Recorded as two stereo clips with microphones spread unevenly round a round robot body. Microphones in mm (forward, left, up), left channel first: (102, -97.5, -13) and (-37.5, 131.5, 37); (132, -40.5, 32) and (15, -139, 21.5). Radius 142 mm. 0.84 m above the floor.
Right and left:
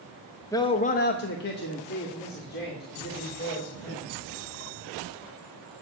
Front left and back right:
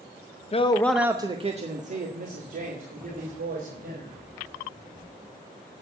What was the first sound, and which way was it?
A man speaking, 5° left.